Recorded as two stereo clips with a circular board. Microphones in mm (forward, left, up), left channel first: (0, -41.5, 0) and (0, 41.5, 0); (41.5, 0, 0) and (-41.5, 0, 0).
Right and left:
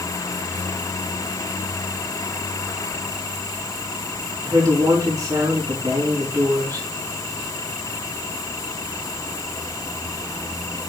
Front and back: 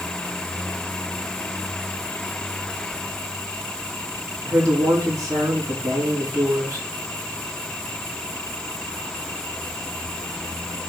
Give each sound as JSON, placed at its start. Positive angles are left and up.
{"t": 4.4, "sound": "a woman speaking", "azimuth_deg": 135, "distance_m": 4.5}